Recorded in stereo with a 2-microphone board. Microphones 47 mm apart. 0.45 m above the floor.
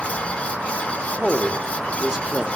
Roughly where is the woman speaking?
Centre.